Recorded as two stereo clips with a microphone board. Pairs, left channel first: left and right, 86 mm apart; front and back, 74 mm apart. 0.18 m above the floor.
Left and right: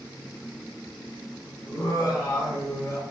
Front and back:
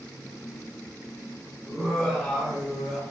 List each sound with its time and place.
1.6 s laughter: 80° left, 2.0 m